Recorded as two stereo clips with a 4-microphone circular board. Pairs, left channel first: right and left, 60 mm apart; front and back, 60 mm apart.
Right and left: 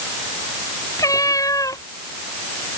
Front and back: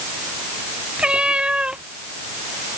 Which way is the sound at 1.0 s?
110° right.